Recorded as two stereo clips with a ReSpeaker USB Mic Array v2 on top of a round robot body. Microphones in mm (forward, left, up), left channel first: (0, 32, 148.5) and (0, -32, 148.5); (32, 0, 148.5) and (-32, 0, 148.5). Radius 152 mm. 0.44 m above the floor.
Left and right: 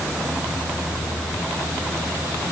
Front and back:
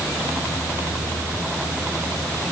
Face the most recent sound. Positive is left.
No sound to turn to.